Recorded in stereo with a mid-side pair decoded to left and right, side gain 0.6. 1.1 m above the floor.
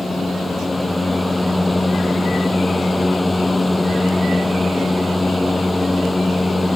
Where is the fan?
10° left.